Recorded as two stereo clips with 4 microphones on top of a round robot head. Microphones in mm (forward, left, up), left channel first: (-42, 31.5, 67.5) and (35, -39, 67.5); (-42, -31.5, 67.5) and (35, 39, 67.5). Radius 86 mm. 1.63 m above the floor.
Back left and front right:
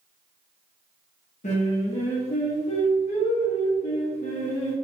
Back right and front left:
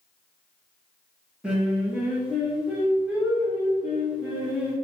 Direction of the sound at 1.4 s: 125° left.